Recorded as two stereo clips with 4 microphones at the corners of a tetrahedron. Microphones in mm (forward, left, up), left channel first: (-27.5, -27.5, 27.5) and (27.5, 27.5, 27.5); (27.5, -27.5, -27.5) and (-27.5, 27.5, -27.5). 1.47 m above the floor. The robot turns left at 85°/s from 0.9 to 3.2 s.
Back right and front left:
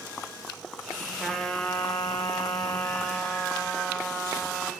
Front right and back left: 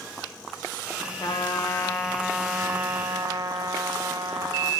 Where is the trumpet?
45° right, 0.8 m; by 4.7 s 145° left, 0.8 m.